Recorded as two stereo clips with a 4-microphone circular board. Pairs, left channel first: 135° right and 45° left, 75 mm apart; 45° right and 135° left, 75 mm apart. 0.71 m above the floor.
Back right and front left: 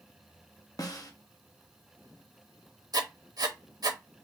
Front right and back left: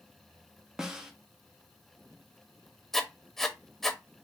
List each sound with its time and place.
0.8 s a snare drum: 145° right, 0.7 m
2.9 s writing: 40° left, 0.6 m